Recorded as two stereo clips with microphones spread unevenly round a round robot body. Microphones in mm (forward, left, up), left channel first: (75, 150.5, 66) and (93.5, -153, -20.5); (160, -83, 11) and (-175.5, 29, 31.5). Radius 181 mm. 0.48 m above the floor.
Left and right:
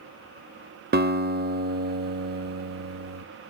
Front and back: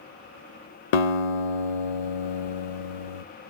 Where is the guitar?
25° right, 0.5 m.